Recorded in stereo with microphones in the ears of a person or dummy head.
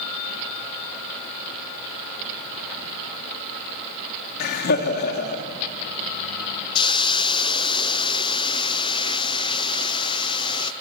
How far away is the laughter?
About 3 m.